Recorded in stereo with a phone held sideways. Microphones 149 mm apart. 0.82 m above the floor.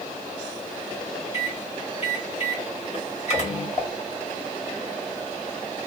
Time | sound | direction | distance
1.3 | a microwave | 50° left (ahead or behind) | 2 m
3.8 | dishes clattering | 30° left (ahead or behind) | 3 m